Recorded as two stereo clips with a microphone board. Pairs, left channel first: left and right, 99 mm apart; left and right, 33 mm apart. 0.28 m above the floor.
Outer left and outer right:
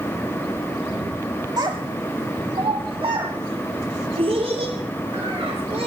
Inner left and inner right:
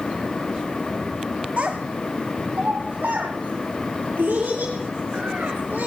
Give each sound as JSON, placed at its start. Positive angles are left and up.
{"t": 1.6, "sound": "a child speaking", "side_deg": -45, "distance_m": 1.0}